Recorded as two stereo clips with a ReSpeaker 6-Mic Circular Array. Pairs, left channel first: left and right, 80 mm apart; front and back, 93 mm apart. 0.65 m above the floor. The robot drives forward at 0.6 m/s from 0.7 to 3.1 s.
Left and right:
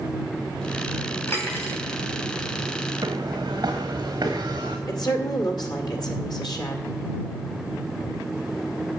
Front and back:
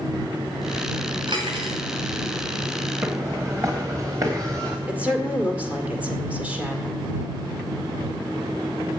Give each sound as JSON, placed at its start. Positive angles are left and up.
{"t": 1.3, "sound": "cutlery clinking", "azimuth_deg": 150, "distance_m": 2.5}
{"t": 3.0, "sound": "footsteps", "azimuth_deg": -125, "distance_m": 2.0}
{"t": 4.9, "sound": "a woman speaking", "azimuth_deg": 105, "distance_m": 1.9}